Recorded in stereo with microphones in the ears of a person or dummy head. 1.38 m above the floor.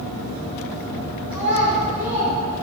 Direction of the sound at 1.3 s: 5° right (ahead or behind).